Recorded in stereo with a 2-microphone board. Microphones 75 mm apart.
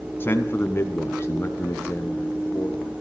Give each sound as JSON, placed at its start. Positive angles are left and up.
{"t": 0.2, "sound": "a man speaking", "side_deg": 30, "distance_m": 1.7}